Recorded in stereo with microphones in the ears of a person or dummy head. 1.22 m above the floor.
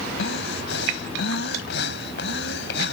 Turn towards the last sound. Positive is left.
turn(degrees=70)  # may be behind; listen again after turning